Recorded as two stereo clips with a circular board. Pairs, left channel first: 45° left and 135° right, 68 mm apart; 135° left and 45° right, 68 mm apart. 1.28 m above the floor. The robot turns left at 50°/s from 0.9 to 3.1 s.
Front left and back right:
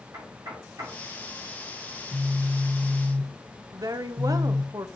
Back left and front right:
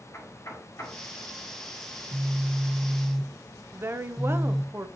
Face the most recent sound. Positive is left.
turn(degrees=-100)